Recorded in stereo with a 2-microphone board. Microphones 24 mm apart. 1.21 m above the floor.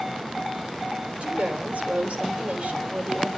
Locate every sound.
1.2 s a woman speaking: 75° right (ahead or behind), 4 m